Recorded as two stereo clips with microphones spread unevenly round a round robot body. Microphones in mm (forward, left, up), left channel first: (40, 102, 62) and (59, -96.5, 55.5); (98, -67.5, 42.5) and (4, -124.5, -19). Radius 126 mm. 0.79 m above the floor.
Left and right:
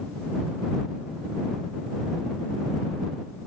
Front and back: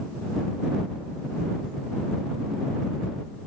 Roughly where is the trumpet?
I don't hear a trumpet.